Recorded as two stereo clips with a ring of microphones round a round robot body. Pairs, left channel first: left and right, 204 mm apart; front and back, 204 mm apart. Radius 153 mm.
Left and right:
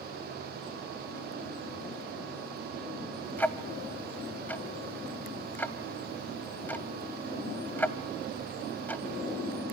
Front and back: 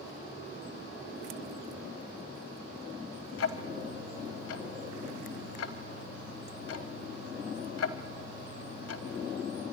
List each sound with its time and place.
3.4 s ticking: 10° left, 0.8 m